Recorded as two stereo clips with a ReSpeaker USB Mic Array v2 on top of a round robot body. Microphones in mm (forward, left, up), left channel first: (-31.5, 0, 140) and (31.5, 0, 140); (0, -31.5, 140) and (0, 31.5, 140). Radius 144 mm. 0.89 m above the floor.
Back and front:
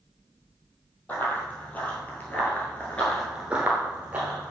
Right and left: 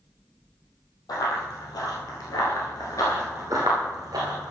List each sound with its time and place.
1.1 s running footsteps: 115° right, 2.5 m; by 4.5 s 65° left, 1.5 m